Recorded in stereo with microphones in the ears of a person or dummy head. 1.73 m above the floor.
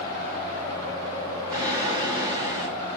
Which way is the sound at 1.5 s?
25° right (ahead or behind).